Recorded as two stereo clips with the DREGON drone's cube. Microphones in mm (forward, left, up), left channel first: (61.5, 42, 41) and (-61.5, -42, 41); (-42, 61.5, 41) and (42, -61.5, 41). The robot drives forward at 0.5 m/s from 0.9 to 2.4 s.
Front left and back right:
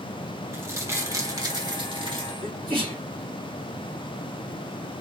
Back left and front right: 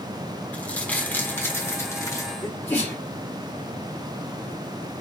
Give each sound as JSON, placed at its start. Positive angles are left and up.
{"t": 0.5, "sound": "crumpling", "azimuth_deg": -175, "distance_m": 1.2}
{"t": 2.4, "sound": "a sneeze", "azimuth_deg": -160, "distance_m": 2.0}